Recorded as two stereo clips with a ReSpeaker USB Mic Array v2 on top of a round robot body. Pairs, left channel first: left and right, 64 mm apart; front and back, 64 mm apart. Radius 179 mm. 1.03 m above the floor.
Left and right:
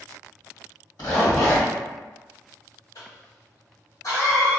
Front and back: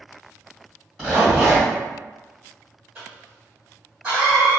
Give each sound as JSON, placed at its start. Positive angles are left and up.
{"t": 1.0, "sound": "a zipper", "azimuth_deg": 85, "distance_m": 1.9}
{"t": 3.0, "sound": "a cough", "azimuth_deg": 105, "distance_m": 1.5}